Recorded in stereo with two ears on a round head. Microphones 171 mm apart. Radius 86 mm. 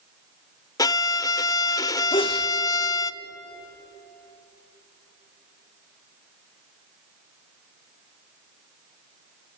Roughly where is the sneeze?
Left.